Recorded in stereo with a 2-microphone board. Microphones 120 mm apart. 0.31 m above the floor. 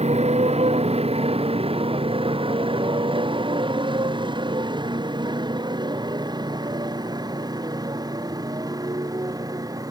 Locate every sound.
0.0 s a motorcycle: 65° right (ahead or behind); by 9.9 s 30° right (ahead or behind)